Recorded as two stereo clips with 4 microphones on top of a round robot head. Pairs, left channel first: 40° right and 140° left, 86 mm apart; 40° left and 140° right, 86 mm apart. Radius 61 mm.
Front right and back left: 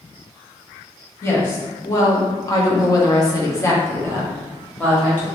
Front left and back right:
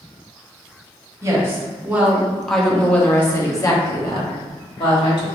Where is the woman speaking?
90° right, 1.2 m; by 5.2 s 30° left, 1.6 m.